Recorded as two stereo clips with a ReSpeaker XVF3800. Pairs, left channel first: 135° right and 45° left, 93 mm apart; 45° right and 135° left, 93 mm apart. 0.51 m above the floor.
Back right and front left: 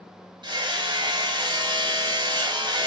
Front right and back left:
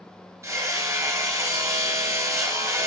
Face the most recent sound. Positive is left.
turn(degrees=75)